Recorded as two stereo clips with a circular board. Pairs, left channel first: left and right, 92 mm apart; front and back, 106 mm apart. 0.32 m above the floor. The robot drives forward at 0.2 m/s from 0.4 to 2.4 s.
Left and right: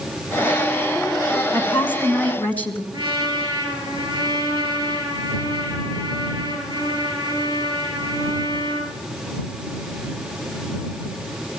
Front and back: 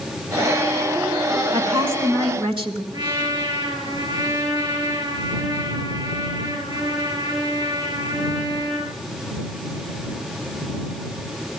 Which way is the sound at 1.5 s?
155° left.